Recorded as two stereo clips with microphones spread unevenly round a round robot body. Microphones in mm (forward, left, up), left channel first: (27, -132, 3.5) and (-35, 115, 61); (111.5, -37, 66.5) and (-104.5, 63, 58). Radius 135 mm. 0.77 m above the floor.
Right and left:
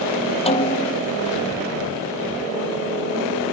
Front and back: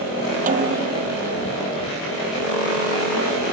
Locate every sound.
0.5 s a snare drum: 145° right